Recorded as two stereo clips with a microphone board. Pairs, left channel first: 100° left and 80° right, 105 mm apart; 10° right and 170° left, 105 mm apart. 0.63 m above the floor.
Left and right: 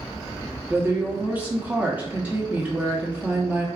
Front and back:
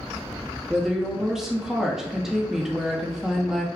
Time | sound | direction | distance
0.7 | a woman speaking | 110° right | 0.8 m